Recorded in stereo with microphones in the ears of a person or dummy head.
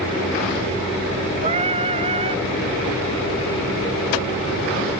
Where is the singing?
30° right (ahead or behind).